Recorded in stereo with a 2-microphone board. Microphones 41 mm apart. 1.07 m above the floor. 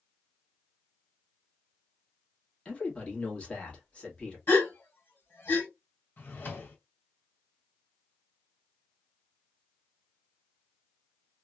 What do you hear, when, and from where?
2.6 s a man speaking: 25° left (ahead or behind), 1.5 m
4.5 s a gasp: 55° left (ahead or behind), 1.5 m
6.2 s a drawer: 50° left (ahead or behind), 1.5 m